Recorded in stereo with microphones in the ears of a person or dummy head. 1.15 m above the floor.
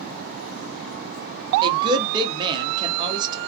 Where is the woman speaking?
25° right (ahead or behind), 0.7 m.